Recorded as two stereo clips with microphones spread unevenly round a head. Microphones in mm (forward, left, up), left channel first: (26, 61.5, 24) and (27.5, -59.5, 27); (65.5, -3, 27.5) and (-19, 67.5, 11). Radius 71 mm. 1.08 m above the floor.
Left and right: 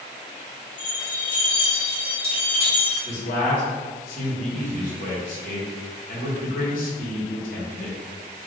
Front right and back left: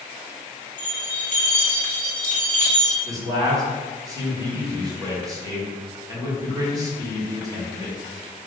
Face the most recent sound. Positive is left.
turn(degrees=85)